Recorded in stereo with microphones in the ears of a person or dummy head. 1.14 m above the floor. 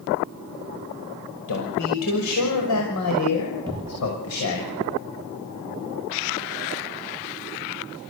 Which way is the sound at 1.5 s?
85° left.